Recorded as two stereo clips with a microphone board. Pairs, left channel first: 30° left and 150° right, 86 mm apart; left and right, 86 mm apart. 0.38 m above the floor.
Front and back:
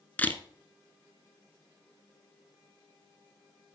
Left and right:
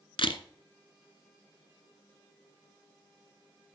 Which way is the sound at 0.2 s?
100° left.